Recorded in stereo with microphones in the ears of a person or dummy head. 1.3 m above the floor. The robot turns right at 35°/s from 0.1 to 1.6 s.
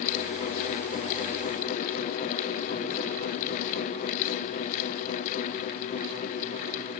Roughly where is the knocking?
No knocking in this recording.